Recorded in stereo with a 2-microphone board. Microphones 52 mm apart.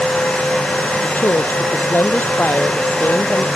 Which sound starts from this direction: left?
A woman speaking, at 1.0 s.